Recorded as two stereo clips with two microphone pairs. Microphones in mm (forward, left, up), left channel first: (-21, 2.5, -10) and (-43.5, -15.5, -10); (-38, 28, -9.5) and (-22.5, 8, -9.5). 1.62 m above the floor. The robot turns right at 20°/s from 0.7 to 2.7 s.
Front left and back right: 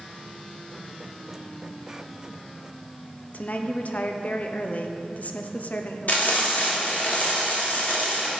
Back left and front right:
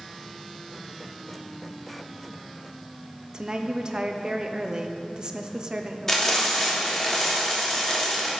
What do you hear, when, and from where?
3.3 s a woman speaking: 5° left, 0.8 m
6.1 s frying: 55° left, 2.5 m